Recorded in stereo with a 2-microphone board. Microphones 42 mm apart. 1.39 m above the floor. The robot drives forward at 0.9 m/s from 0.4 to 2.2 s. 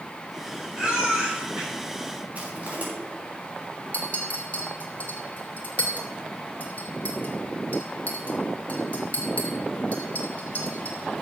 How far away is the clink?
About 2.5 m.